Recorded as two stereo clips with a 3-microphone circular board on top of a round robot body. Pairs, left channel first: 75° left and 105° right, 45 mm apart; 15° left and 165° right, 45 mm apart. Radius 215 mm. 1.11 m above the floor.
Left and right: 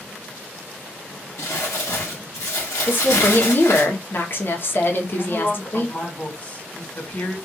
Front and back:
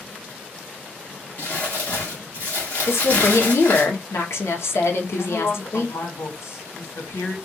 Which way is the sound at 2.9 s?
35° left.